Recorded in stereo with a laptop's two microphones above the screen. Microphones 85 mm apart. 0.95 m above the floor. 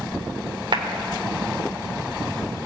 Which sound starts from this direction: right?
A clap, at 0.7 s.